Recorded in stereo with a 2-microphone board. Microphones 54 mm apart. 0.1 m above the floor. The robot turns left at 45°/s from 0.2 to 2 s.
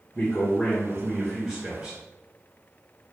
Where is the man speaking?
10° left (ahead or behind), 1.5 m; by 2.0 s 25° right (ahead or behind), 1.5 m.